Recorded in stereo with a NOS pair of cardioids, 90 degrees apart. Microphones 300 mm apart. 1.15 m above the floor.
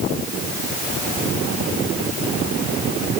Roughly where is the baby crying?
No baby crying in this recording.